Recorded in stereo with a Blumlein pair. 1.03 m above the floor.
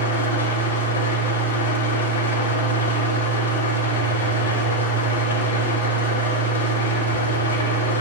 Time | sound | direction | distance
0.0 | an engine running | 70° left | 1.1 m